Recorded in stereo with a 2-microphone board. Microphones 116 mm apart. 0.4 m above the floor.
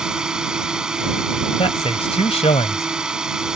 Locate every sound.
0.0 s a drone: 5° right (ahead or behind)
1.6 s a man speaking: 60° left (ahead or behind)